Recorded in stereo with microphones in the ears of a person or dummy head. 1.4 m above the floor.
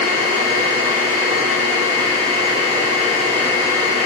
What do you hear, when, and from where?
0.0 s a machine running: 30° right (ahead or behind), 5 m